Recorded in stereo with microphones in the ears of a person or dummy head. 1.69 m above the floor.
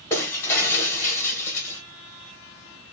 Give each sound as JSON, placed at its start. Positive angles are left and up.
{"t": 0.1, "sound": "breaking glass", "side_deg": 15, "distance_m": 0.8}